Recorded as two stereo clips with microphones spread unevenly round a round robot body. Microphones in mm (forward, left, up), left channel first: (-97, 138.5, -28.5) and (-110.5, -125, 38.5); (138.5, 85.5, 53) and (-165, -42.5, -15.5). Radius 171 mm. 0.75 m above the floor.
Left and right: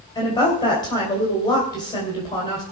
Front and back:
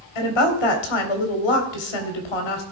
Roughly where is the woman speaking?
Ahead.